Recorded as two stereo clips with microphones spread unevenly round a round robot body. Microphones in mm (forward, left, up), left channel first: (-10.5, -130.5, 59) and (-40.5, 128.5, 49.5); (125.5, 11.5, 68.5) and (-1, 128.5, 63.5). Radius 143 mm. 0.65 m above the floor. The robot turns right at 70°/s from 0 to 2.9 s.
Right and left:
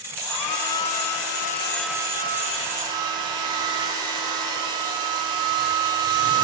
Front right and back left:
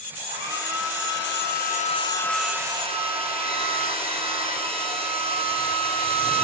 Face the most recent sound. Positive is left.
turn(degrees=80)